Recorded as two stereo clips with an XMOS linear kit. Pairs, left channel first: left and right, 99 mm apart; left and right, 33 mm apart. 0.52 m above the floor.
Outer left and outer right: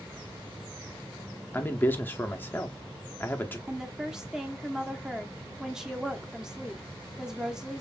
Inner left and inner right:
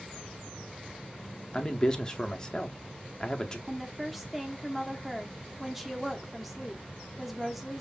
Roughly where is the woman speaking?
Centre.